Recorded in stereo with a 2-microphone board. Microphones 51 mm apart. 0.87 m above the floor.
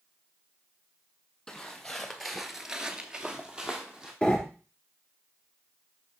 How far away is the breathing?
About 2 m.